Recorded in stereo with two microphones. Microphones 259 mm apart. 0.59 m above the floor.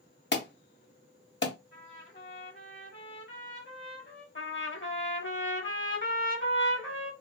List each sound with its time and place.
0.3 s an alarm: 45° left (ahead or behind), 0.7 m
1.7 s a trumpet: 50° left (ahead or behind), 1.4 m
4.3 s a trumpet: 50° left (ahead or behind), 0.9 m